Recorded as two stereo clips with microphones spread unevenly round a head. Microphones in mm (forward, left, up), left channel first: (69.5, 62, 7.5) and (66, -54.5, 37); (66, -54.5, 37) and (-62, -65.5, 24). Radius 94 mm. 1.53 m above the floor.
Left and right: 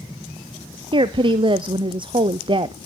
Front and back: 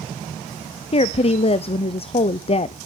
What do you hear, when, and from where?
0.9 s a woman speaking: 40° right, 0.7 m